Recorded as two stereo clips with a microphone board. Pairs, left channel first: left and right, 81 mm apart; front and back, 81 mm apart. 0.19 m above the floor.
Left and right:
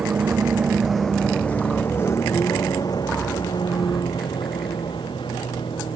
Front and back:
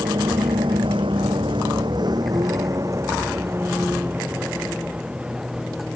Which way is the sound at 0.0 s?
160° right.